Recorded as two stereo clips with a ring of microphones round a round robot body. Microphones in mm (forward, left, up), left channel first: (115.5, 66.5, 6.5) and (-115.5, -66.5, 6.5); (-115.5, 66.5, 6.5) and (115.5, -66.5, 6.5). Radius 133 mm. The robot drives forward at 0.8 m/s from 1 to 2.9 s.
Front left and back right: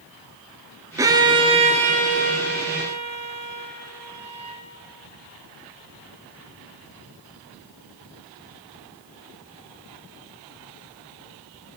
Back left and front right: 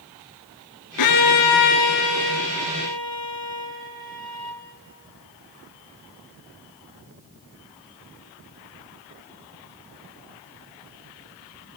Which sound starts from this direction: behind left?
A violin, at 1.0 s.